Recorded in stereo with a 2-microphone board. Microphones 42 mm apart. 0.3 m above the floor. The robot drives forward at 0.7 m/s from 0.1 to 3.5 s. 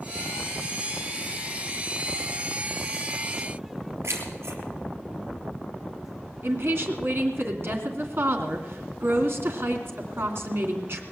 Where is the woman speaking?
60° right (ahead or behind), 2.5 m.